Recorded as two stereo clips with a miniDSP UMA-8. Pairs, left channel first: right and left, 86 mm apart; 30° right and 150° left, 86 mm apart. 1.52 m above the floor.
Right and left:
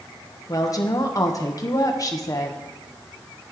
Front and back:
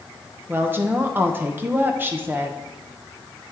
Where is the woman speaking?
140° right, 1.1 m.